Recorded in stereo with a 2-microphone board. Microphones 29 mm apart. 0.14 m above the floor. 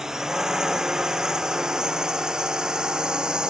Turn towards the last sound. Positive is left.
turn(degrees=-30)  # may be behind; listen again after turning